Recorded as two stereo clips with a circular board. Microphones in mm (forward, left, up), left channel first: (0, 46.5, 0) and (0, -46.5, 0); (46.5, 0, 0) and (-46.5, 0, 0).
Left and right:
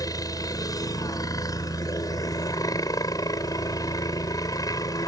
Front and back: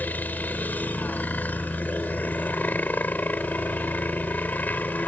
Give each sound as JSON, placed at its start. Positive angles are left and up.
{"t": 0.0, "sound": "a helicopter", "azimuth_deg": 65}